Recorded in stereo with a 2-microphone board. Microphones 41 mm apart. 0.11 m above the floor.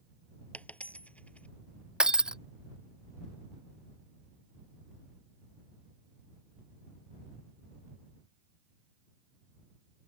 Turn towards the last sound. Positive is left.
turn(degrees=-20)  # may be behind; listen again after turning